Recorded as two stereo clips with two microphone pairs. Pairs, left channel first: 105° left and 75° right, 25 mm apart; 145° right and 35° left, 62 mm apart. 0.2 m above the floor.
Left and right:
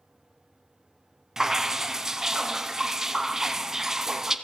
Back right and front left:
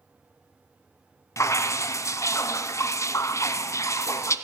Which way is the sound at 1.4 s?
140° right.